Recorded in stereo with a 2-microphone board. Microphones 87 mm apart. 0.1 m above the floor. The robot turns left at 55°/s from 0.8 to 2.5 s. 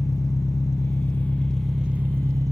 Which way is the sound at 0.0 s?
45° left.